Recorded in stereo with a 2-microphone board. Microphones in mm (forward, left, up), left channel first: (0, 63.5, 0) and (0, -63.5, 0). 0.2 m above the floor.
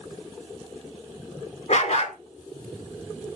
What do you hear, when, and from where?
1.7 s a dog barking: 65° left (ahead or behind), 1.1 m